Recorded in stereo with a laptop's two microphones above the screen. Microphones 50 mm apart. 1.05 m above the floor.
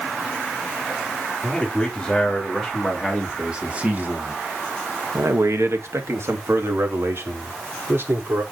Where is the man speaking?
10° left (ahead or behind), 3 m; by 8.4 s 50° right (ahead or behind), 4 m.